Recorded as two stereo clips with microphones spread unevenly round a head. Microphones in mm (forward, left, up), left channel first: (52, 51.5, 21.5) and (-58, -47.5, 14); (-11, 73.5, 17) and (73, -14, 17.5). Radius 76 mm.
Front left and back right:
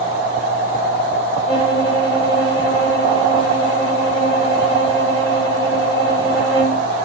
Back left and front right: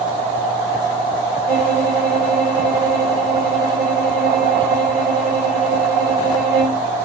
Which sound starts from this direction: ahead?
A violin, at 1.5 s.